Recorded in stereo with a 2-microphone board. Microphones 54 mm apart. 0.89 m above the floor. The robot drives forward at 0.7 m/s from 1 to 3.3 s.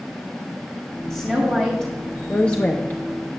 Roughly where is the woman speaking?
Centre.